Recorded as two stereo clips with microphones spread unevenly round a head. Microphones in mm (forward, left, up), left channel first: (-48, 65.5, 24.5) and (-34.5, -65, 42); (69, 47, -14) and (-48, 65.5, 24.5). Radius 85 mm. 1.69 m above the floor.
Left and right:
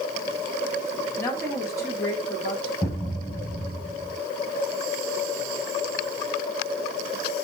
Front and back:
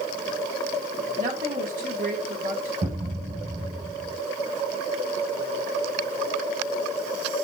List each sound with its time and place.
1.2 s a woman speaking: 165° left, 3 m
2.8 s a thud: 165° left, 2.5 m